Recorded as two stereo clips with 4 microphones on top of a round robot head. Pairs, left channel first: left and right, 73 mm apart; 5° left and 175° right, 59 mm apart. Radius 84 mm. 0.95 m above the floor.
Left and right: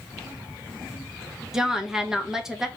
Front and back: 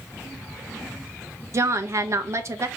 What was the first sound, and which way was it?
A woman speaking, 170° right.